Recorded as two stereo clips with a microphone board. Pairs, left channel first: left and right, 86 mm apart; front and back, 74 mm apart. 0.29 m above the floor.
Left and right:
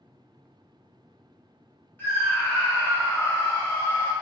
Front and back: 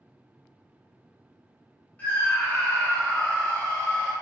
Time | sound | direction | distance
2.0 | a scream | 50° left | 1.1 m